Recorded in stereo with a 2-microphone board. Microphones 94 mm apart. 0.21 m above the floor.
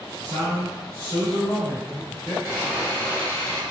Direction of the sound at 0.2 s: 40° right (ahead or behind).